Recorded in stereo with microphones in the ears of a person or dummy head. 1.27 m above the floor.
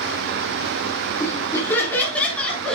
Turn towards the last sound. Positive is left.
turn(degrees=5)  # may be behind; listen again after turning